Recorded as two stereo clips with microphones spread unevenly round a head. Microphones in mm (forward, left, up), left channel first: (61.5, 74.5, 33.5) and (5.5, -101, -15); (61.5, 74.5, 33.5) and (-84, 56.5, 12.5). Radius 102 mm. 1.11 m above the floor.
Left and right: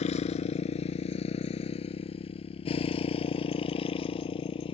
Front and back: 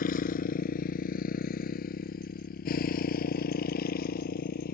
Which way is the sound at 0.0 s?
25° left.